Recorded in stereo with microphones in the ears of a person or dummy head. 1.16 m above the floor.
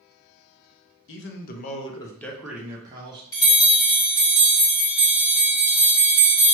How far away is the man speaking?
About 0.6 m.